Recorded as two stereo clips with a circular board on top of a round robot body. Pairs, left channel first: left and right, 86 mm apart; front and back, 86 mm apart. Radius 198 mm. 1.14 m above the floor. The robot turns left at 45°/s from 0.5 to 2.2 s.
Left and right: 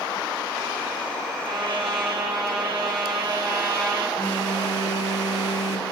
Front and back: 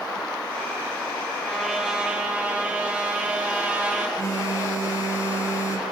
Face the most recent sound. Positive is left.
turn(degrees=50)